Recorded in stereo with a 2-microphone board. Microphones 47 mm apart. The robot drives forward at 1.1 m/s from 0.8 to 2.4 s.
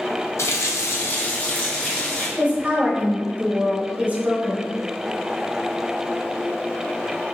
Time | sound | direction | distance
0.4 | a running tap | 75° left (ahead or behind) | 0.6 m
2.4 | a woman speaking | 25° right (ahead or behind) | 0.9 m